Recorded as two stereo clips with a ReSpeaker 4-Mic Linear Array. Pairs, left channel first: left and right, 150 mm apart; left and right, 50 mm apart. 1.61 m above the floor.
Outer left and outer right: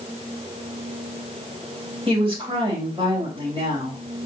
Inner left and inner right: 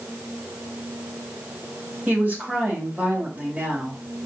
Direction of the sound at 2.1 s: 35° right (ahead or behind).